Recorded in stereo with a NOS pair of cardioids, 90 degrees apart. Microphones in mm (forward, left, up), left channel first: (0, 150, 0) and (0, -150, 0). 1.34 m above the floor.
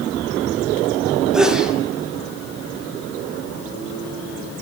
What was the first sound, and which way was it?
A sneeze, straight ahead.